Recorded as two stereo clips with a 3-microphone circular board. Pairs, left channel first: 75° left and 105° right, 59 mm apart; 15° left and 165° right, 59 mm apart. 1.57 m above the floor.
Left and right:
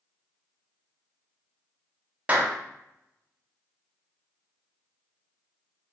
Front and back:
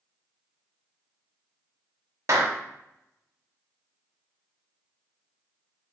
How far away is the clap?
About 0.8 m.